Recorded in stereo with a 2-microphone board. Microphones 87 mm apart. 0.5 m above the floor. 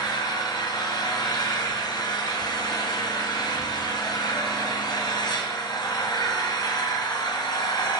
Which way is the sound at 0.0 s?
50° left (ahead or behind).